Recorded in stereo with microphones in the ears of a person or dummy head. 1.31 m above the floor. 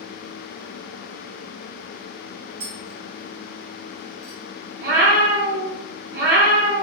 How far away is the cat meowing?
About 1.6 m.